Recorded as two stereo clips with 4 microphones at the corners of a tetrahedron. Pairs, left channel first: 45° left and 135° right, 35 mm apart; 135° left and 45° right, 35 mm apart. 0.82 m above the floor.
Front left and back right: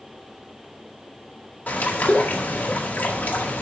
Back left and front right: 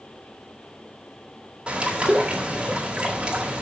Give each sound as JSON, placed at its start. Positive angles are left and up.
{"t": 1.7, "sound": "a bird", "azimuth_deg": 20, "distance_m": 1.8}